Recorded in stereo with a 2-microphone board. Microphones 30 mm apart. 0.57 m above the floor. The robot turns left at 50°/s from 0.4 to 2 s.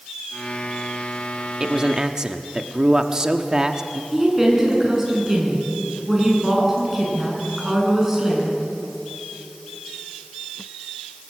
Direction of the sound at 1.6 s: 25° right (ahead or behind).